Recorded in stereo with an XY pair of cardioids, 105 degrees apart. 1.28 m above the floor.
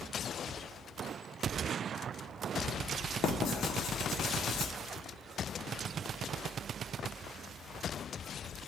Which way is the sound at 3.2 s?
70° left.